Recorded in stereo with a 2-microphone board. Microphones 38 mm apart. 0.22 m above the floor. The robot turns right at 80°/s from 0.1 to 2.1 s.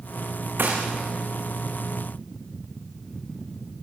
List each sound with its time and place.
0.6 s a gunshot: 55° right (ahead or behind), 5.5 m; by 0.8 s 40° right (ahead or behind), 5.5 m